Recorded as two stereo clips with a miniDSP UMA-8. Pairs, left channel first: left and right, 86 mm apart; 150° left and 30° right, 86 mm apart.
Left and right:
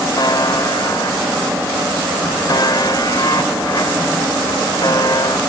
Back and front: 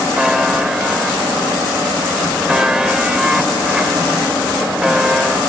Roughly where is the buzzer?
Ahead left.